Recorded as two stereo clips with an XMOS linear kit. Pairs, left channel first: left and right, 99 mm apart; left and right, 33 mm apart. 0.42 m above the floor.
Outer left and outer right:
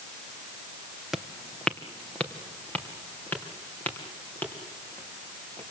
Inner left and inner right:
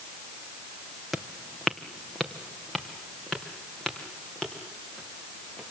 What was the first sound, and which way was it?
Footsteps, 5° right (ahead or behind).